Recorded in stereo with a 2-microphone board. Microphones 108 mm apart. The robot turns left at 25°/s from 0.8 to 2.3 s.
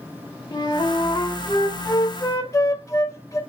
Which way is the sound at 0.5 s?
90° left.